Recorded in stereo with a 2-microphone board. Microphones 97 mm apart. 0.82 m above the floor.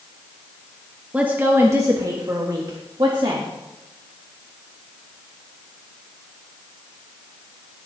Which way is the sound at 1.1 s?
15° right (ahead or behind).